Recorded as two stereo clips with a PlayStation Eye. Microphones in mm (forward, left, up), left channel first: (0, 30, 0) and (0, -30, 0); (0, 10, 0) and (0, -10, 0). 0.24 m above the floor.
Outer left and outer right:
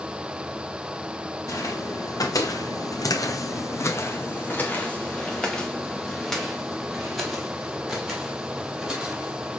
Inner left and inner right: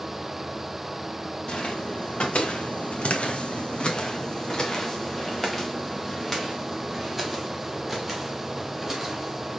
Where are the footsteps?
60° left (ahead or behind), 1.3 m; by 9.6 s 10° right (ahead or behind), 3.5 m.